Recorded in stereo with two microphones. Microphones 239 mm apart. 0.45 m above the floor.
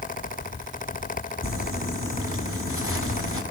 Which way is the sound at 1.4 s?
70° right (ahead or behind).